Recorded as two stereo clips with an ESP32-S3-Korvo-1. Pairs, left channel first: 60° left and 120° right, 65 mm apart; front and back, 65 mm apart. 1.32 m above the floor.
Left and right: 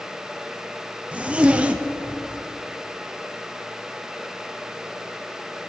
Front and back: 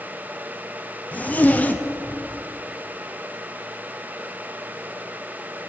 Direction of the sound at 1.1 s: 55° right.